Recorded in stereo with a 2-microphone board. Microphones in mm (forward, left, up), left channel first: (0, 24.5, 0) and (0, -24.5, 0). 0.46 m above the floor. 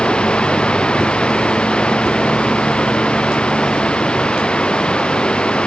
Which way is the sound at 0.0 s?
20° left (ahead or behind).